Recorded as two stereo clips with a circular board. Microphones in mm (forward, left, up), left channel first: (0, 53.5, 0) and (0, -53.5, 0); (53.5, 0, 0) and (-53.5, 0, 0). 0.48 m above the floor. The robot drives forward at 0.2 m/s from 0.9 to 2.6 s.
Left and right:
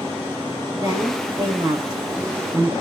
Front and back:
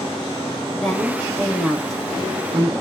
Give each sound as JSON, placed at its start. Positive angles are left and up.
{"t": 0.7, "sound": "a woman speaking", "azimuth_deg": -80, "distance_m": 1.3}